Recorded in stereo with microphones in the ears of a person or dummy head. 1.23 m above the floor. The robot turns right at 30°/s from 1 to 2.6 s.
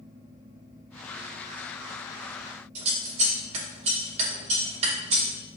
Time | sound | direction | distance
2.8 | scissors | 40° right (ahead or behind) | 2.5 m